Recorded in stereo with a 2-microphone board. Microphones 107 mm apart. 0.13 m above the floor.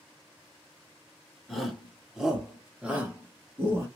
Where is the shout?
Centre (ahead or behind), 1.8 m; by 3.9 s 20° right (ahead or behind), 1.6 m.